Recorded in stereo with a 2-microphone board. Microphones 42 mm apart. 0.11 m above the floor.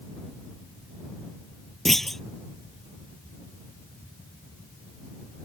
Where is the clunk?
10° left (ahead or behind).